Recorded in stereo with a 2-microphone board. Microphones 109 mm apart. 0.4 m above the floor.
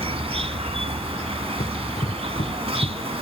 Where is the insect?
65° right (ahead or behind).